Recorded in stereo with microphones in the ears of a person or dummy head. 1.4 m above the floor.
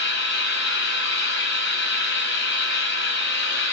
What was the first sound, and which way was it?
An engine running, 80° left.